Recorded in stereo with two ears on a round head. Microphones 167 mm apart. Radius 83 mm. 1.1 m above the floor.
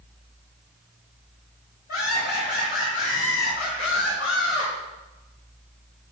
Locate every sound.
1.9 s laughter: 50° left (ahead or behind), 5.5 m; by 4.7 s 60° left (ahead or behind), 4 m